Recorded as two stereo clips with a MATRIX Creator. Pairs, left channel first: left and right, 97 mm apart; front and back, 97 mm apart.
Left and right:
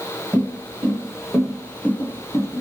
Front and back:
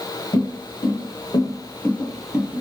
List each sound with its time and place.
0.3 s footsteps: 15° right, 1.2 m; by 2.6 s 120° left, 0.7 m